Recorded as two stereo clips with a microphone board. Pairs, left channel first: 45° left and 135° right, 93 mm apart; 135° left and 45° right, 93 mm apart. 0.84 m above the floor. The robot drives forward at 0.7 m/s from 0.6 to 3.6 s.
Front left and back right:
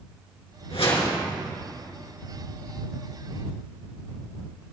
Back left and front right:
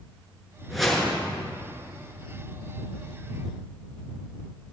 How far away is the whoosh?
About 4 m.